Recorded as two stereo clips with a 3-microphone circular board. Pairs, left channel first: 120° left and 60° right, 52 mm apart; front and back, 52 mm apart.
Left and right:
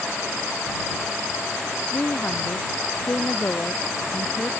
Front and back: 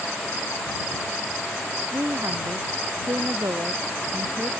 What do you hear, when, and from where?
1.9 s a woman speaking: 170° left